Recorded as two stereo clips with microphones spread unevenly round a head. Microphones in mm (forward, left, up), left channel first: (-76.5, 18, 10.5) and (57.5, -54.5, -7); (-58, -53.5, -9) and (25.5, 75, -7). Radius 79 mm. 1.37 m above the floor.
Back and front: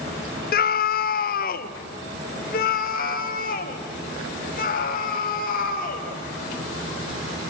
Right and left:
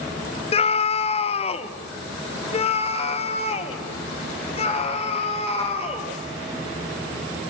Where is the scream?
175° right, 0.6 m.